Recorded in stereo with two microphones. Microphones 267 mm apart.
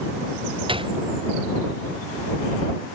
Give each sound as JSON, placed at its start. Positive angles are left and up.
{"t": 0.7, "sound": "a gunshot", "side_deg": -20}